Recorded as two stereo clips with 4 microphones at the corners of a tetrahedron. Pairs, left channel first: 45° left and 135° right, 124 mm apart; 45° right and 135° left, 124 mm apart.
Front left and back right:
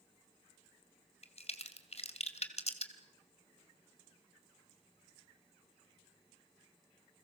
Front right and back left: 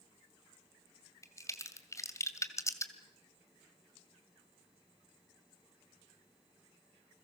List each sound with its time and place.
1.2 s a crack: 20° left, 2 m